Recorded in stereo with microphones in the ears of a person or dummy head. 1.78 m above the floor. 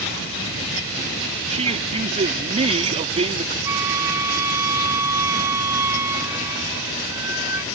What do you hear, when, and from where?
1.5 s a man speaking: 30° right (ahead or behind)
3.6 s a flute: 10° right (ahead or behind)